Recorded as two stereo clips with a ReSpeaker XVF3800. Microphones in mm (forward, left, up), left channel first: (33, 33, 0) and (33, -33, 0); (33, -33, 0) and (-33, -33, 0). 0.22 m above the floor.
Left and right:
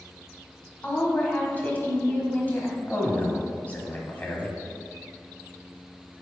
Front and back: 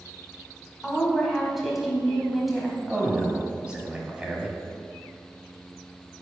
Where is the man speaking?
125° left, 1.0 m.